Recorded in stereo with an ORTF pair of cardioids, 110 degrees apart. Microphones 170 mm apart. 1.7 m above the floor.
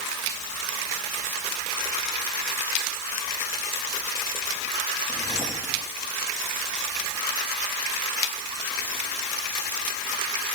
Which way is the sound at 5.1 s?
20° left.